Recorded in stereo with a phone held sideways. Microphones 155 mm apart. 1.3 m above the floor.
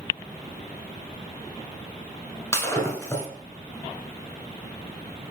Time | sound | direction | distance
2.5 | breaking glass | 15° left (ahead or behind) | 1.4 m